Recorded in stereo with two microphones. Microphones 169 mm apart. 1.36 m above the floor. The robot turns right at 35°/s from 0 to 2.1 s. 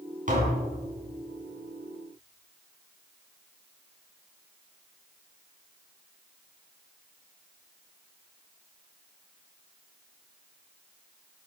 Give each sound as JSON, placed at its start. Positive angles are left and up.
{"t": 0.3, "sound": "tapping", "side_deg": -50, "distance_m": 3.5}